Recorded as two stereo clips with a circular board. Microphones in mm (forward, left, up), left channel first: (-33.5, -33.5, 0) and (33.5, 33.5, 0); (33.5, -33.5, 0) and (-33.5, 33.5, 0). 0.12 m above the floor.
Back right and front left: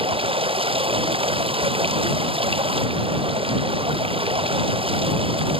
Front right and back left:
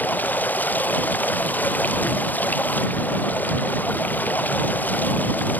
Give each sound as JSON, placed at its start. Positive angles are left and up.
{"t": 0.0, "sound": "running water", "azimuth_deg": 25}